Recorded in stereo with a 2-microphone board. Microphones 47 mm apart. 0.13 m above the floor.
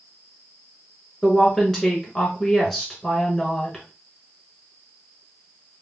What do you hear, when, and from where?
1.2 s a woman speaking: 10° left (ahead or behind), 1.4 m